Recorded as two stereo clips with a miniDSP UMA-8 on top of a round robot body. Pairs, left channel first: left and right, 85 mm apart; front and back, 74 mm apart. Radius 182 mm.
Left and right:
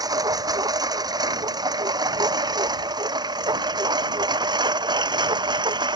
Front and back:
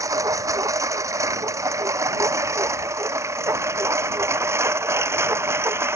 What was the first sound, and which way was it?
A lawn mower, 135° right.